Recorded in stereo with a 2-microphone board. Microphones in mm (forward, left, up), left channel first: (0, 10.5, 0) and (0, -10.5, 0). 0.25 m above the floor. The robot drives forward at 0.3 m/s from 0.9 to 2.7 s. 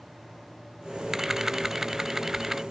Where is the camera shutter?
20° right (ahead or behind).